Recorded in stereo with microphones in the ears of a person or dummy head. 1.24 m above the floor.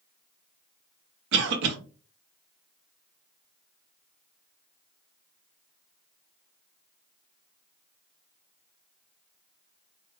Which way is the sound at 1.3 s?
75° right (ahead or behind).